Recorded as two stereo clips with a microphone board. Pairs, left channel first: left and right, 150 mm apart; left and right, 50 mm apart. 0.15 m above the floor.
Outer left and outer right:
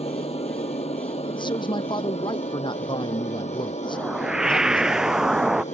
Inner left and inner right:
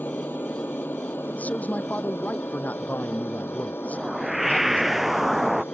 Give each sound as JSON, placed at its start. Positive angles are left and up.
{"t": 0.0, "sound": "an aircraft", "side_deg": 45}
{"t": 1.3, "sound": "a man speaking", "side_deg": 30}
{"t": 3.9, "sound": "a whoosh", "side_deg": -5}